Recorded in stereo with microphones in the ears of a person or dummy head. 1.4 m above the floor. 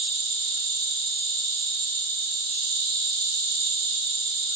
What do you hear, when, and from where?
0.0 s an insect: 50° right (ahead or behind), 1.7 m